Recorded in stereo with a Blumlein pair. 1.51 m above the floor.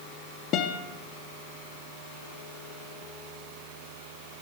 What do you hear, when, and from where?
0.5 s a guitar: 35° left, 0.5 m